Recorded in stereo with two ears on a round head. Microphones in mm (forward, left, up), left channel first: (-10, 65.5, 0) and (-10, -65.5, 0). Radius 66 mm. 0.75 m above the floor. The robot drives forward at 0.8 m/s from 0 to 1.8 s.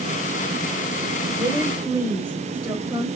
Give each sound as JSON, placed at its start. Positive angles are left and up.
{"t": 1.4, "sound": "a woman speaking", "side_deg": -20, "distance_m": 3.5}